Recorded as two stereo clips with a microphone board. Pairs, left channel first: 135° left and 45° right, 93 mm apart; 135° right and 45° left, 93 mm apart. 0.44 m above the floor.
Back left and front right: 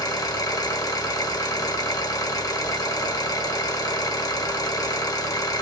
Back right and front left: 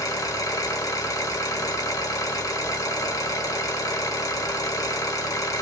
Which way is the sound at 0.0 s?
Straight behind.